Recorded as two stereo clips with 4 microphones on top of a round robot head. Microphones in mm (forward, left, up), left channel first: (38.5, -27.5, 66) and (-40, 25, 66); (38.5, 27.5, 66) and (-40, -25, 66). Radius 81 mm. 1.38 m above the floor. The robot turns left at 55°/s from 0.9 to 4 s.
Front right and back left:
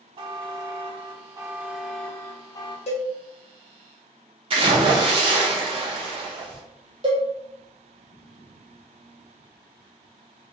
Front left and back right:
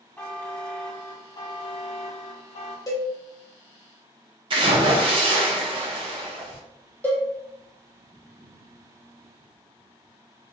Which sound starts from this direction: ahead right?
A cowbell, at 2.9 s.